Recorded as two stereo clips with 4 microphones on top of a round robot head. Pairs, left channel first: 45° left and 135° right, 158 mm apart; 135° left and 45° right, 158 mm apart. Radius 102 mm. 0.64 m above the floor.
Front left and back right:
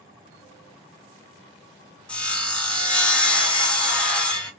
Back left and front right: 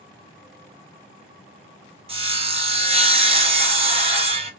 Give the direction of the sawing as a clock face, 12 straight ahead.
1 o'clock.